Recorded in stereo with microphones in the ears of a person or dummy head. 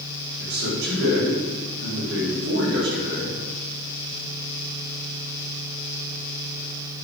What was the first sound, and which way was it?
A man speaking, 65° right (ahead or behind).